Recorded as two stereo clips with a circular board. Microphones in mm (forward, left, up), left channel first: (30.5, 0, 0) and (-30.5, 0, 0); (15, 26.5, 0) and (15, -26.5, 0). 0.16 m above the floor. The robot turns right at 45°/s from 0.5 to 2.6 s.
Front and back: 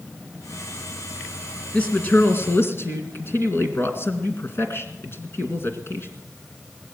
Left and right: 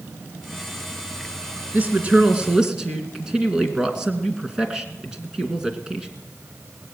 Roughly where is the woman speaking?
Ahead right.